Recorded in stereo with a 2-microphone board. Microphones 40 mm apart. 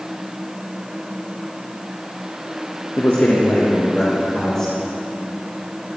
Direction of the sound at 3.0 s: 70° left (ahead or behind).